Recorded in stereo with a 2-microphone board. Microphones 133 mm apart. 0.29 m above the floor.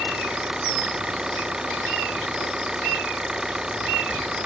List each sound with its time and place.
0.0 s an engine running: 5° right (ahead or behind)